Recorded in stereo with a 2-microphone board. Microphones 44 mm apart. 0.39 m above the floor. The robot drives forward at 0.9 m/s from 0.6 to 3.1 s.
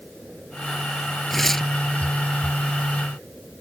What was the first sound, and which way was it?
Tearing paper, 5° left (ahead or behind).